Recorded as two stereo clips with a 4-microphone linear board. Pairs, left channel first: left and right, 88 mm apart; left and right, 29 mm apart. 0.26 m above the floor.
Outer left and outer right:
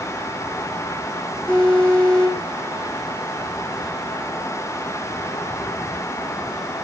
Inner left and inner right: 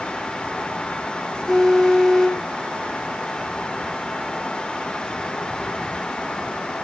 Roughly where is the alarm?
Centre.